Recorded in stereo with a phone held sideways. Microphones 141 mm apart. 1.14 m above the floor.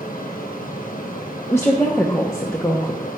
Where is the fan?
75° left (ahead or behind), 1.2 m.